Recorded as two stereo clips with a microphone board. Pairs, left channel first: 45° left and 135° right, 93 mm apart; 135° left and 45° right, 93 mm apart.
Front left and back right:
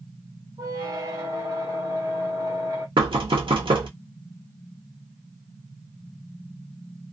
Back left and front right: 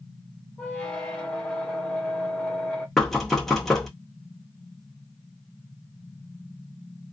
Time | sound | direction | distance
0.6 | a squeak | 150° right | 0.8 m
3.0 | knocking | 140° right | 0.8 m